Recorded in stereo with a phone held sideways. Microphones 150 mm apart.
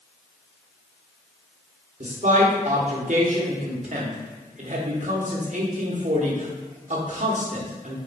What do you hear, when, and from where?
2.0 s a man speaking: 55° right (ahead or behind), 1.1 m